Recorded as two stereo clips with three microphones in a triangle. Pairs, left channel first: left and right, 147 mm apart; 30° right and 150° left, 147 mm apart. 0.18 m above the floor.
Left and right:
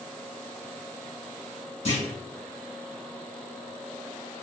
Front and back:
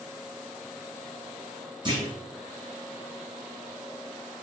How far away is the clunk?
About 1.3 m.